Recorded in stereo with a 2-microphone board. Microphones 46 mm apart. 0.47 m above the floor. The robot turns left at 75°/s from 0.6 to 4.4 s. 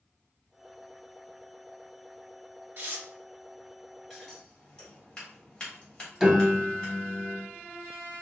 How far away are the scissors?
About 2 m.